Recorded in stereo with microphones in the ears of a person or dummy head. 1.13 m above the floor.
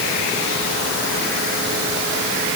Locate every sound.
Only background noise.